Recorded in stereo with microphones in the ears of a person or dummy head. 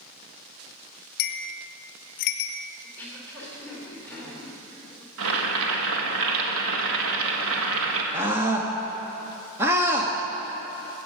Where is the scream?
15° right (ahead or behind), 1.0 m.